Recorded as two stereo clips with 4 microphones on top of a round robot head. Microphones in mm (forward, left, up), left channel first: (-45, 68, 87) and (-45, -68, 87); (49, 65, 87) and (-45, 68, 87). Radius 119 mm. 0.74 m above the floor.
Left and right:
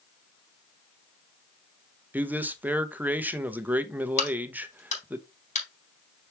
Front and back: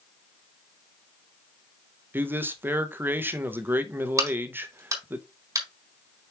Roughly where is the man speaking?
Behind right.